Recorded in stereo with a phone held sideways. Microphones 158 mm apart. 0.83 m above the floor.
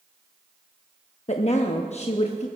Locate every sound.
1.3 s a woman speaking: 50° left (ahead or behind), 0.8 m